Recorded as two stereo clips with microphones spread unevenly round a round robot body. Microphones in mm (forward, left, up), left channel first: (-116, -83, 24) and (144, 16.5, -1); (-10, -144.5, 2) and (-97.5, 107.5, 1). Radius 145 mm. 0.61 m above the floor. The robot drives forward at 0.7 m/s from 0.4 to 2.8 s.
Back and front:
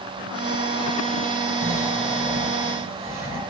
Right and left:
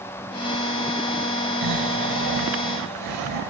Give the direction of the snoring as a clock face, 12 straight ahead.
9 o'clock.